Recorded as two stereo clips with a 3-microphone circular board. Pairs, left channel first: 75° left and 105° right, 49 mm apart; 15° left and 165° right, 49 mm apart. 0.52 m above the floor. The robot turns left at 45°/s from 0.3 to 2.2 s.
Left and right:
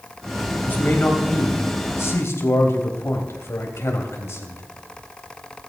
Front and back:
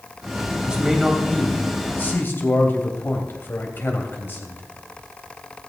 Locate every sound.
0.7 s a man speaking: 125° left, 3 m; by 4.6 s 55° left, 3 m